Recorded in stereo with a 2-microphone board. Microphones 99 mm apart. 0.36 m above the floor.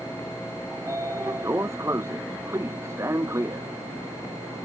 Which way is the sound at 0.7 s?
30° right (ahead or behind).